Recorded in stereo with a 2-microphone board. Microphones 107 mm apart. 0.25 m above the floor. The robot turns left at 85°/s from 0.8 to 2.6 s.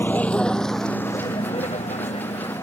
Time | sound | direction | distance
0.0 | a vehicle | 20° left (ahead or behind) | ?